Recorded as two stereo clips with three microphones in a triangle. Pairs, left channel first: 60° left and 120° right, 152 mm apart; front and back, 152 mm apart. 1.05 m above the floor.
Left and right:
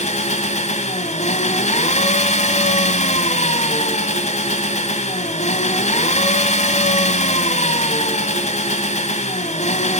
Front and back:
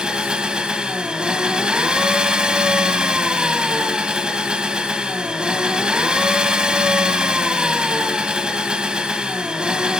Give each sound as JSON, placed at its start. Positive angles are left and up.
{"t": 0.0, "sound": "an engine running", "azimuth_deg": 95, "distance_m": 2.0}